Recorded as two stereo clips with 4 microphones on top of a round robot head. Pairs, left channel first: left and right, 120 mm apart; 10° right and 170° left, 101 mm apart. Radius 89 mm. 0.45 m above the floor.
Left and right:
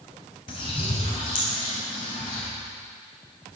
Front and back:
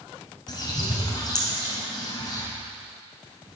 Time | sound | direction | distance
0.5 | a bird | 35° left | 3.5 m